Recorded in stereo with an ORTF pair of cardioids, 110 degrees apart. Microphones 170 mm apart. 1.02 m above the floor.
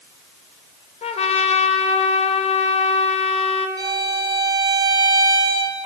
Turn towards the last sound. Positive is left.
turn(degrees=-25)